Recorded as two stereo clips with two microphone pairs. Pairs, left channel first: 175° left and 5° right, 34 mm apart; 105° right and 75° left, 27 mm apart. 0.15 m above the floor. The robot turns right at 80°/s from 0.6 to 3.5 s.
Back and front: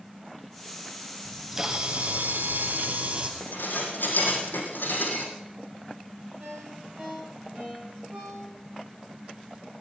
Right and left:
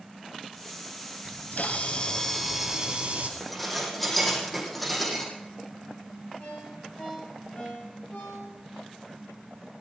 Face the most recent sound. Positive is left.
turn(degrees=-65)